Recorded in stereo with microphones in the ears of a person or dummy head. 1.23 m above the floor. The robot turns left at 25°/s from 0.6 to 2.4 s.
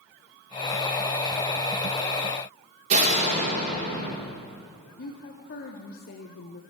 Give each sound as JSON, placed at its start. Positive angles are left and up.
{"t": 2.9, "sound": "a door slam", "side_deg": -50, "distance_m": 2.0}
{"t": 5.0, "sound": "a woman speaking", "side_deg": 45, "distance_m": 0.8}